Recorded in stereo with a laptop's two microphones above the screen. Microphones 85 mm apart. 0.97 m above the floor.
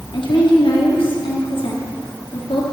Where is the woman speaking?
80° left, 1.8 m.